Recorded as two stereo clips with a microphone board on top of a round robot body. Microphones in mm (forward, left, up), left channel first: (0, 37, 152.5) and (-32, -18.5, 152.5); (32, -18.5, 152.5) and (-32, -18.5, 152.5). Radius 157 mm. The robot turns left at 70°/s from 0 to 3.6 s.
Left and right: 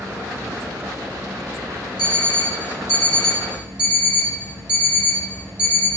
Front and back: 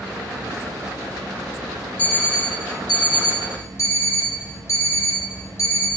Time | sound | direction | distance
2.0 | an alarm clock | 70° left | 1.3 m